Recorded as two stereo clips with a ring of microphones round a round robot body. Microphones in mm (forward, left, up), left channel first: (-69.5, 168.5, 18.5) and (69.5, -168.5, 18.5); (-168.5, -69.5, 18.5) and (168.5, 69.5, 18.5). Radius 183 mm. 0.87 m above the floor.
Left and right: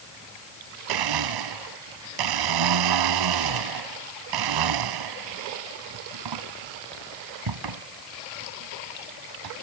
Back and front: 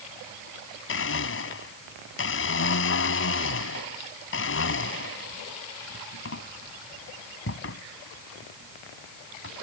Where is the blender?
100° right.